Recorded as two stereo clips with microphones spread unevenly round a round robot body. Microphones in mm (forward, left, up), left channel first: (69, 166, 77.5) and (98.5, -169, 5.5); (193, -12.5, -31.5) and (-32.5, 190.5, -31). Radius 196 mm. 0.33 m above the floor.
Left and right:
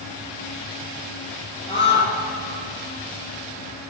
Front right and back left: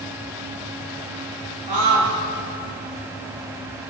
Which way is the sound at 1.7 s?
175° left.